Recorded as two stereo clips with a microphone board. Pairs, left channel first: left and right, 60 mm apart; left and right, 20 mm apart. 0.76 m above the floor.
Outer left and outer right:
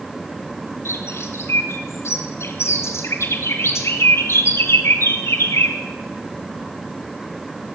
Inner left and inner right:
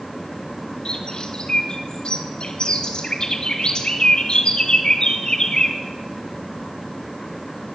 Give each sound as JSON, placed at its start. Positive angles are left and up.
{"t": 0.8, "sound": "a bird", "side_deg": 50, "distance_m": 3.5}